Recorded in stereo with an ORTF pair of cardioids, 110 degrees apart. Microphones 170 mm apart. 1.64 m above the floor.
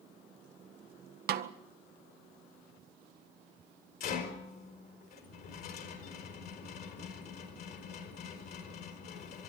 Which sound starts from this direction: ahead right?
A snare drum, at 1.3 s.